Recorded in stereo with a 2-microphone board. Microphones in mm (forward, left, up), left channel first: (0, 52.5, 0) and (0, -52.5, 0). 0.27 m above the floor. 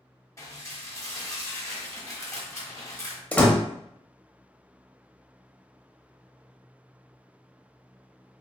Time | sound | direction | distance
0.4 | dishes clattering | 25° left (ahead or behind) | 1.0 m
3.3 | a door slam | 10° left (ahead or behind) | 0.6 m